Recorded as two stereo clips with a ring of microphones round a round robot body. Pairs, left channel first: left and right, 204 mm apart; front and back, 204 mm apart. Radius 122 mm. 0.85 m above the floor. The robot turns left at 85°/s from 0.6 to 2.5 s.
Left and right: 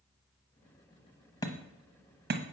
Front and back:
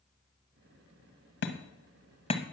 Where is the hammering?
15° left, 1.1 m; by 2.4 s 70° right, 1.1 m.